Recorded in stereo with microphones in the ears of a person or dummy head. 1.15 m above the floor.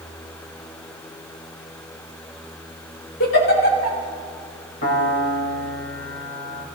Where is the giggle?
70° left (ahead or behind), 3.5 m.